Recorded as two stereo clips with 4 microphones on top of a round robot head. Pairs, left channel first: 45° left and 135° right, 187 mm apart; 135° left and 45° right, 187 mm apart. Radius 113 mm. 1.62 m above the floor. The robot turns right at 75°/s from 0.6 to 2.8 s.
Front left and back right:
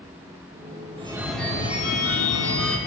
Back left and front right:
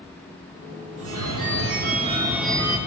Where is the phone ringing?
70° right, 2.5 m; by 2.8 s 65° left, 2.5 m.